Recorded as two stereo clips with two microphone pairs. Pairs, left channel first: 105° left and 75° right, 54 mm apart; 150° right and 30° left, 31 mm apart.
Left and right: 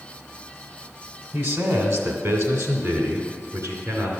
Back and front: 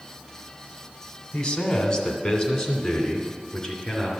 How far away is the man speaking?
About 1.6 m.